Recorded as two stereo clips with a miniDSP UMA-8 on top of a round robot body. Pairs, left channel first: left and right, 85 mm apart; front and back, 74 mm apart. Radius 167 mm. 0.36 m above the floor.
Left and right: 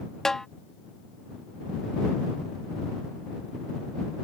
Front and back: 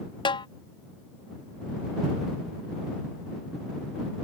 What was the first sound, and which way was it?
A snare drum, 5° left.